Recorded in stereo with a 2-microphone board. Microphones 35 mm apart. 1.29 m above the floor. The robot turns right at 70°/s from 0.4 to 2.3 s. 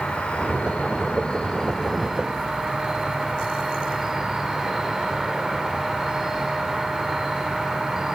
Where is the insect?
65° left, 1.1 m; by 8.2 s 160° right, 1.1 m.